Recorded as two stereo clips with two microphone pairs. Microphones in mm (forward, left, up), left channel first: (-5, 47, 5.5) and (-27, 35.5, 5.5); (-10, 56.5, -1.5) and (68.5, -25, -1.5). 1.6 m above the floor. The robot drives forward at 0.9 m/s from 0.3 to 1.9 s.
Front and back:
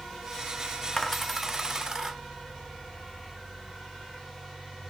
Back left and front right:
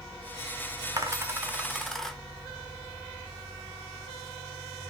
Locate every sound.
1.0 s a dropped coin: 25° right, 1.0 m; by 2.2 s 145° right, 0.9 m